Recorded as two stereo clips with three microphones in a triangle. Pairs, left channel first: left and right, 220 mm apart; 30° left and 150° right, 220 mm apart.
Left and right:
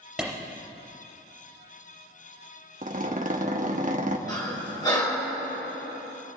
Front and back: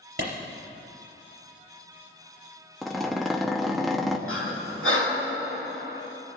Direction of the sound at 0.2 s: 175° right.